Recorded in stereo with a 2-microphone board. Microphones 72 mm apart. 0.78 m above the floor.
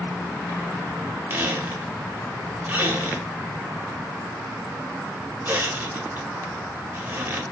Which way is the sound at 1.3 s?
30° right (ahead or behind).